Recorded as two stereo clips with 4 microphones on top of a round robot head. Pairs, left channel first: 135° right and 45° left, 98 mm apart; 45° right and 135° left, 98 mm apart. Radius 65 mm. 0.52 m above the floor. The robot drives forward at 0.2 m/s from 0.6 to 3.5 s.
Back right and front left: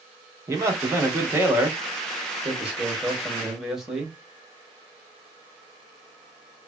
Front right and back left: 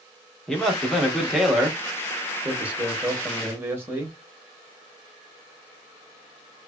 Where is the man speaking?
35° left, 1.0 m; by 4.2 s 120° left, 1.0 m.